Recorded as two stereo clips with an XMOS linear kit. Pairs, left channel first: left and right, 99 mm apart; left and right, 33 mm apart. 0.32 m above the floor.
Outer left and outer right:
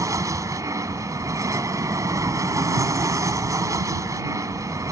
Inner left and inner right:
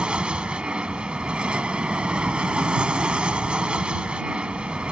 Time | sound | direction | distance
0.0 | an aircraft | 35° right (ahead or behind) | ?